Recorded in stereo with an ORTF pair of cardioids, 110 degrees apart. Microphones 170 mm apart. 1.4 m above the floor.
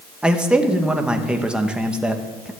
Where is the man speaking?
5° right, 1.7 m.